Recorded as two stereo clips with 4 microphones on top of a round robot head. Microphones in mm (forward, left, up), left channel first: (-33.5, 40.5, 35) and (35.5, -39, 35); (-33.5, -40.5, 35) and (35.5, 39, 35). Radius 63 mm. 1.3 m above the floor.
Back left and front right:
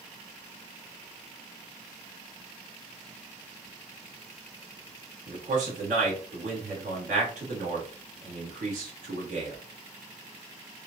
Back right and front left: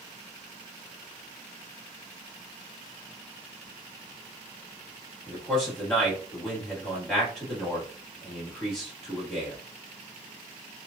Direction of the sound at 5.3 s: 45° right.